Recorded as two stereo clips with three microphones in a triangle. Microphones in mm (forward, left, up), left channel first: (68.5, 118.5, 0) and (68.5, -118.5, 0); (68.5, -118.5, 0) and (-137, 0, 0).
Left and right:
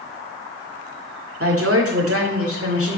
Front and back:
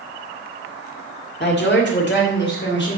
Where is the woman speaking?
75° right, 1.9 m; by 3.0 s 70° right, 3 m.